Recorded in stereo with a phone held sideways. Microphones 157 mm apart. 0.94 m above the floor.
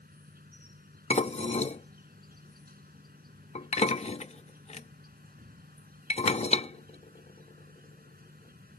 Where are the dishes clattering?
45° left (ahead or behind).